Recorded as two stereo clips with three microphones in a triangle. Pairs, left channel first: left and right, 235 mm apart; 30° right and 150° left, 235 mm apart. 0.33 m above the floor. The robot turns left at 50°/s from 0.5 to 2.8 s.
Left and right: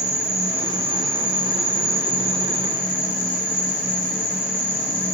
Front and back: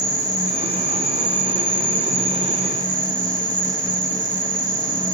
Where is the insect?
155° right, 7.5 m; by 5.1 s 90° left, 7.5 m.